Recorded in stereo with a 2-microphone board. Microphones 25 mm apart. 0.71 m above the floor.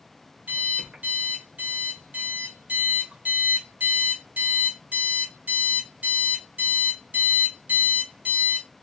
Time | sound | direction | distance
0.5 | an alarm clock | 65° right (ahead or behind) | 1.5 m